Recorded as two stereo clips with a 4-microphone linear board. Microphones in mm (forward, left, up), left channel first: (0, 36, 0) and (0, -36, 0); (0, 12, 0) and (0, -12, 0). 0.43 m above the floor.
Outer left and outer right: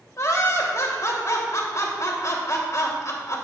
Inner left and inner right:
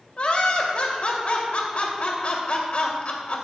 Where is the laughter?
50° left (ahead or behind), 1.9 m.